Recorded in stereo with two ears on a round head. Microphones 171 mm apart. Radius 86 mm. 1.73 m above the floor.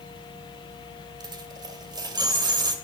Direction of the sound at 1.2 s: 25° right (ahead or behind).